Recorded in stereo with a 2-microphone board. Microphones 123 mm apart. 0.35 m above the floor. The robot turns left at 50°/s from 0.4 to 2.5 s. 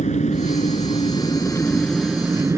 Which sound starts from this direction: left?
An engine running, at 0.0 s.